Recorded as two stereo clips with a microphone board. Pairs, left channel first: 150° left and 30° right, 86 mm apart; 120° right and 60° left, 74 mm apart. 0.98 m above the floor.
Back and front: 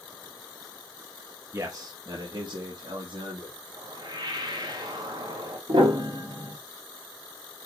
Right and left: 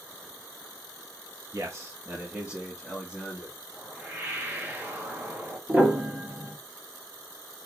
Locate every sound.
1.5 s a man speaking: 25° left, 1.0 m; by 3.5 s 35° right, 1.9 m
3.7 s a whoosh: straight ahead, 2 m
5.7 s a piano: 5° right, 1.6 m